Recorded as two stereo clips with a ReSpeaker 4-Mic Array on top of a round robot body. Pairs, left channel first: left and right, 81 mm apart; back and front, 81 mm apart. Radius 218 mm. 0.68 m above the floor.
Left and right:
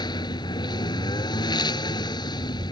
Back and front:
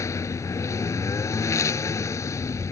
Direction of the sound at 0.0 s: 125° left.